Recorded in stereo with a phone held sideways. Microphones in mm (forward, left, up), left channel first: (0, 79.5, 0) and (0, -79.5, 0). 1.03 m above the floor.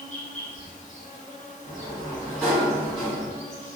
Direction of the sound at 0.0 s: 50° left (ahead or behind).